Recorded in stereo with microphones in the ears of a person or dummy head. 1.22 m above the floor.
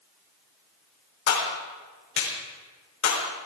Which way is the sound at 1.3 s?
65° left (ahead or behind).